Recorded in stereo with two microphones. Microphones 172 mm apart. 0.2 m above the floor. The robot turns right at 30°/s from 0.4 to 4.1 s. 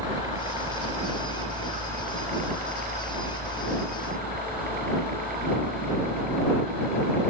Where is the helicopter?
20° right (ahead or behind); by 7.3 s 50° right (ahead or behind).